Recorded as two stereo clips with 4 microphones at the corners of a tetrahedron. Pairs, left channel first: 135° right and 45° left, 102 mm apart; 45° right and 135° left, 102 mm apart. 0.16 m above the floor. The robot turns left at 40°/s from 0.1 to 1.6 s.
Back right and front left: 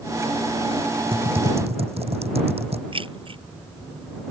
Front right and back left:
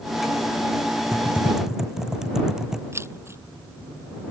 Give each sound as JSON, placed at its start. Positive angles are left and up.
{"t": 1.1, "sound": "typing on a keyboard", "azimuth_deg": 70}
{"t": 2.9, "sound": "keys jangling", "azimuth_deg": 70}